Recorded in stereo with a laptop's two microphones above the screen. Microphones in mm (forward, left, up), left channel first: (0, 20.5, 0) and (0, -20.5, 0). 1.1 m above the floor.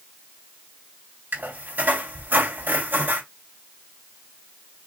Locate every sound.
1.3 s a squeak: 65° right (ahead or behind), 3 m